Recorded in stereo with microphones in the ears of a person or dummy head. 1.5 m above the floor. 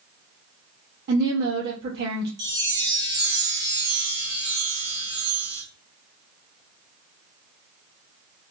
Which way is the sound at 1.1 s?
65° right (ahead or behind).